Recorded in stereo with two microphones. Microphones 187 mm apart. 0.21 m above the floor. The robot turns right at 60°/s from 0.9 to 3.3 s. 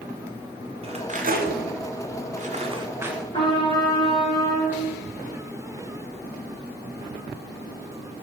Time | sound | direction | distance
0.8 | cutlery clinking | 30° right (ahead or behind) | 1.0 m
3.3 | a trumpet | 25° left (ahead or behind) | 2.5 m